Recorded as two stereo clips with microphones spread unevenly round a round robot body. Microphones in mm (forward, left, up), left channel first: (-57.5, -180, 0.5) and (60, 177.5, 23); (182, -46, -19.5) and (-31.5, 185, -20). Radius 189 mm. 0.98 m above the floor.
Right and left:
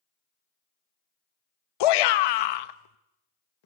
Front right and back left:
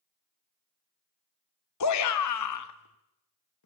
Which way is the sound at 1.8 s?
95° right.